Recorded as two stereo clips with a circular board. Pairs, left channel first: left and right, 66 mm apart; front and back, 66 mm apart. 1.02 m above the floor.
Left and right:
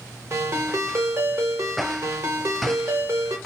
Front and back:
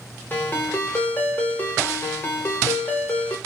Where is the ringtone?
50° right, 0.9 m.